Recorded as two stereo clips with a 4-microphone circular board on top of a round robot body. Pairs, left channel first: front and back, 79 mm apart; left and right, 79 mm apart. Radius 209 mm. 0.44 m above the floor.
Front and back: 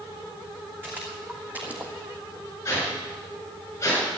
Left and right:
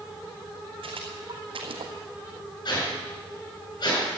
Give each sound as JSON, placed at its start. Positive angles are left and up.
{"t": 0.8, "sound": "footsteps", "azimuth_deg": -110, "distance_m": 3.0}
{"t": 2.6, "sound": "a whoosh", "azimuth_deg": 60, "distance_m": 7.0}